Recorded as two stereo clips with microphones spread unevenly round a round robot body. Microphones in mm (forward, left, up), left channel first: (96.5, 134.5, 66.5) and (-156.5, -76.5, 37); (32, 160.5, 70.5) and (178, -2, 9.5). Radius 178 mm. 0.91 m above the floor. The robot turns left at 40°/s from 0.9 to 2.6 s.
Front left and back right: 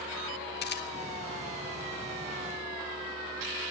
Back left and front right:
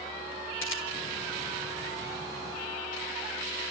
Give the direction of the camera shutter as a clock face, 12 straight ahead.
9 o'clock.